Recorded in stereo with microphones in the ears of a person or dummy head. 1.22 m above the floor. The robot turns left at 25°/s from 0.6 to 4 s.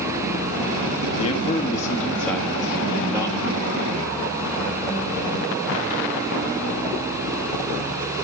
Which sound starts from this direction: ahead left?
A man speaking, at 1.2 s.